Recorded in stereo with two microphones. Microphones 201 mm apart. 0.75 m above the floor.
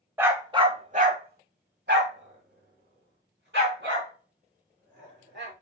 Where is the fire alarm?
No fire alarm in this recording.